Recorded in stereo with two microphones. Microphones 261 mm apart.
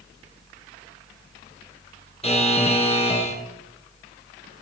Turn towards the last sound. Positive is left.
turn(degrees=25)  # may be behind; listen again after turning